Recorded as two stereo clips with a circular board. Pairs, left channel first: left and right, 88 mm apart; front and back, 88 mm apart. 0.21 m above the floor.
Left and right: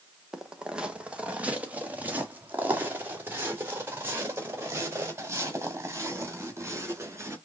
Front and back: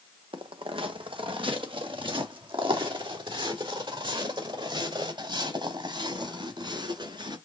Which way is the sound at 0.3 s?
175° right.